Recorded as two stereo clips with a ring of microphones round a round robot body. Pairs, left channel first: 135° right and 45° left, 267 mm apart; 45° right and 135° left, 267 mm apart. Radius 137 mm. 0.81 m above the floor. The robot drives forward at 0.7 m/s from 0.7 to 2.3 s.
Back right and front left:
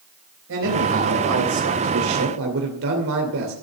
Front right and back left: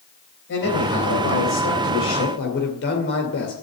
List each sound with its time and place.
0.5 s a man speaking: straight ahead, 3.5 m; by 3.5 s 5° left, 2.5 m